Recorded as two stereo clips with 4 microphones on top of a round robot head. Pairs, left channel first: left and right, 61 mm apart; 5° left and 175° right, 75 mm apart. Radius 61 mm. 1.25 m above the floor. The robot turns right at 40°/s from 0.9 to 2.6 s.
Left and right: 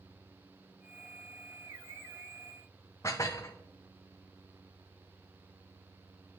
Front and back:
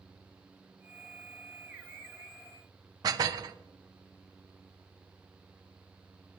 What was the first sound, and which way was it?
Dishes clattering, 150° left.